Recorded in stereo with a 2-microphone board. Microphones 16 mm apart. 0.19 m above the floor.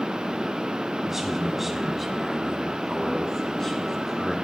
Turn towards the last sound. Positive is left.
turn(degrees=25)  # may be behind; listen again after turning